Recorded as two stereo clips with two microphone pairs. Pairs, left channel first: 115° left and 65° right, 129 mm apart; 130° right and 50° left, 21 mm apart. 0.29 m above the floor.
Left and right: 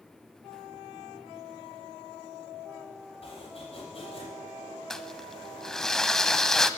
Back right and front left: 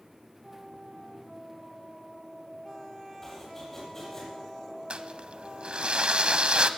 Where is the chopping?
155° left, 9.5 m.